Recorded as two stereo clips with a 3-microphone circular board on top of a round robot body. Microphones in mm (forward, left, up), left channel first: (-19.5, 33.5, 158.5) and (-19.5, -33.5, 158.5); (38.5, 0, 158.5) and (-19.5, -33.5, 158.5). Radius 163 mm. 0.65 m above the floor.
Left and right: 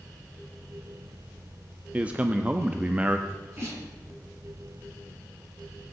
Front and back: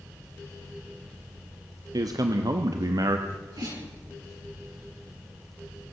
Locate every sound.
1.9 s a man speaking: 160° right, 1.1 m
3.3 s a sneeze: 140° right, 9 m